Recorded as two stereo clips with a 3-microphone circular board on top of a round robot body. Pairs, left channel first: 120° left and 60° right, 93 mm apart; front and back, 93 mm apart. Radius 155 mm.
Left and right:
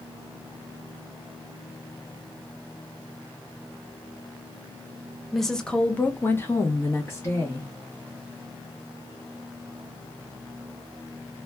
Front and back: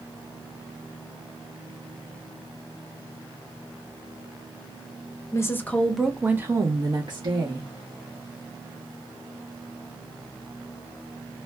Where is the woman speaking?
30° left, 0.8 m; by 7.7 s straight behind, 1.2 m.